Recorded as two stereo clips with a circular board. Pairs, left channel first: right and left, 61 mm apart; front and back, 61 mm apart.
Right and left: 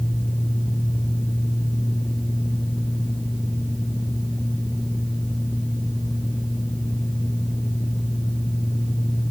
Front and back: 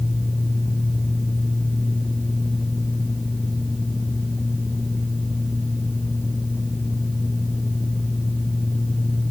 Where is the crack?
No crack in this recording.